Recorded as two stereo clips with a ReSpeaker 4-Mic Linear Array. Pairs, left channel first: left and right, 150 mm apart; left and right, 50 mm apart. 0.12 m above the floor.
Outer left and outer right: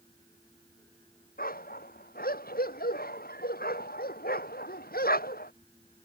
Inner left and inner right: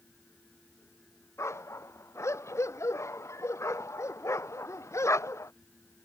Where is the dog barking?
75° left (ahead or behind); by 5.5 s 80° left.